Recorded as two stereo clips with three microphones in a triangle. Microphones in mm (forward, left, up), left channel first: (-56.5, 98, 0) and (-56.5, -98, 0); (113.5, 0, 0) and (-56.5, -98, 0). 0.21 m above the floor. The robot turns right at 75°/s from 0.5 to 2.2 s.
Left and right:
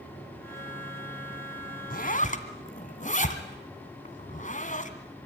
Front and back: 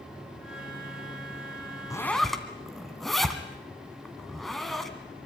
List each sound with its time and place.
1.9 s a zipper: 95° left, 2 m; by 4.9 s 120° left, 2 m